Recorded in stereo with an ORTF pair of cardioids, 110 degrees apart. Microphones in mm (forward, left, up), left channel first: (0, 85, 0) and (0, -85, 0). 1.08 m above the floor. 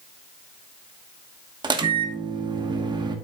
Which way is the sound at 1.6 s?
25° right.